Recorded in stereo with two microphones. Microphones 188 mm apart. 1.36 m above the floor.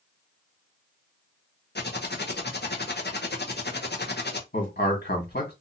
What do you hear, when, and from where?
1.8 s typing on a keyboard: 60° left (ahead or behind), 0.7 m
4.5 s a man speaking: 60° left (ahead or behind), 1.6 m